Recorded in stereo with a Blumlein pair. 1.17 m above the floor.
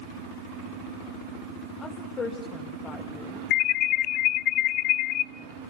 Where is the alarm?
35° left, 0.5 m.